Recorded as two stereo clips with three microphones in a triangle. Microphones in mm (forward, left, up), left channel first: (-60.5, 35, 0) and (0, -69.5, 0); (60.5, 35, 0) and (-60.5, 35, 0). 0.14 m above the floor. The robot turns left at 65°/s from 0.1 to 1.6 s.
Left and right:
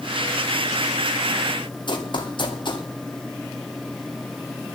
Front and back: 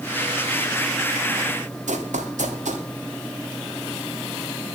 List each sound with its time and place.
1.9 s running footsteps: 170° left, 2 m